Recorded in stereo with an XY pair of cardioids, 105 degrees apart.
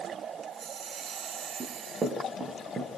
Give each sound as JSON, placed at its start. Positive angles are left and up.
{"t": 1.6, "sound": "running footsteps", "azimuth_deg": -35, "distance_m": 7.5}